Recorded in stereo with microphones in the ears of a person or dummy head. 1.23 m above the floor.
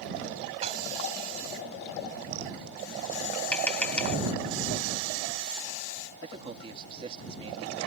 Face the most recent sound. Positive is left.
turn(degrees=-30)  # may be behind; listen again after turning